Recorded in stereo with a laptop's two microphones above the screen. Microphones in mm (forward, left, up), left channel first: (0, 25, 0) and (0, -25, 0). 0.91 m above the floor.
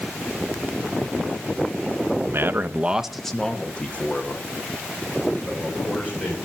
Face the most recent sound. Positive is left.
turn(degrees=40)  # may be behind; listen again after turning